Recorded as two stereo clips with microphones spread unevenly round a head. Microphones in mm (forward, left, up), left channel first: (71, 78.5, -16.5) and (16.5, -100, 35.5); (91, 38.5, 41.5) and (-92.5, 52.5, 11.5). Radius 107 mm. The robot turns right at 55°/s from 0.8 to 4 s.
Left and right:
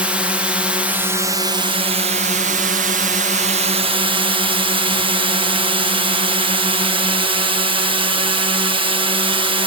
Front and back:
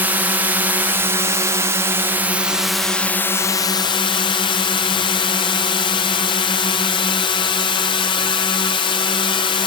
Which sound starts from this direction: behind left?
A drone, at 0.0 s.